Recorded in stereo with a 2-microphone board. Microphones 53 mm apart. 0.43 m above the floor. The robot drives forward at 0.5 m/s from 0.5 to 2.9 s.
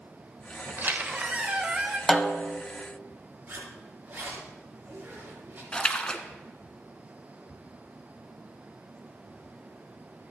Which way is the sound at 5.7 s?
20° left (ahead or behind).